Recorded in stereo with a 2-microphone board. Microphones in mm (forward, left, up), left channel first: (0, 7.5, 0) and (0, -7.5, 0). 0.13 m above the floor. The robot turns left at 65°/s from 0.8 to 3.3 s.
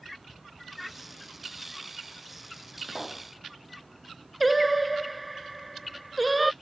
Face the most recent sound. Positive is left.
turn(degrees=-5)  # may be behind; listen again after turning